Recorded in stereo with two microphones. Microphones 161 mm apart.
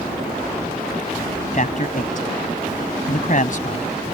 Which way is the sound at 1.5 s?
60° left (ahead or behind).